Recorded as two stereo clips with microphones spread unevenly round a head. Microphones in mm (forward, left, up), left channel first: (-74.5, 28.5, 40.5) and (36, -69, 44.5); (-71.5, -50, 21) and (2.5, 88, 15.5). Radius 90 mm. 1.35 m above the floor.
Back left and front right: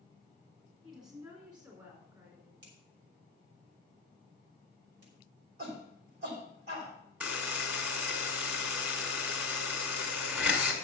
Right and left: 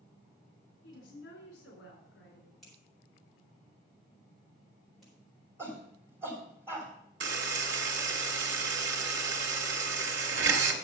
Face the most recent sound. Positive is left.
turn(degrees=40)